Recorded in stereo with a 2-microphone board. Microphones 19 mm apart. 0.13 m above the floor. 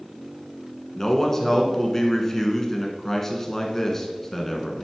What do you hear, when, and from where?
0.9 s a man speaking: 20° left (ahead or behind), 1.2 m